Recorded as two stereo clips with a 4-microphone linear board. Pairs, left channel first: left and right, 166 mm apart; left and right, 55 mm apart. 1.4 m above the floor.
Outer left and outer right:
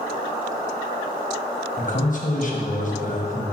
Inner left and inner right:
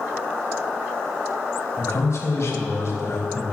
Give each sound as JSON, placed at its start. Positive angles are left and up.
{"t": 1.8, "sound": "a man speaking", "side_deg": 55, "distance_m": 1.2}